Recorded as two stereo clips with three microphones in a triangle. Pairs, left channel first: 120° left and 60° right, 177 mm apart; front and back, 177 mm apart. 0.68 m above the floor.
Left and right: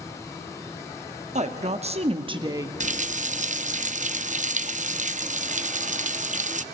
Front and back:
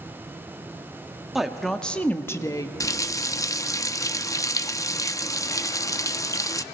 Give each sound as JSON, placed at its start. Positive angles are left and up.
{"t": 1.4, "sound": "a woman speaking", "azimuth_deg": -95, "distance_m": 1.1}
{"t": 2.8, "sound": "a running tap", "azimuth_deg": -65, "distance_m": 0.5}